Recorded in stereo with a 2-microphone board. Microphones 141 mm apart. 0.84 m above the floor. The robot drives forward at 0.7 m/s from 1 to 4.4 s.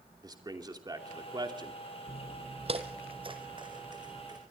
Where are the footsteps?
50° right (ahead or behind), 1.2 m; by 4.4 s 30° right (ahead or behind), 3 m.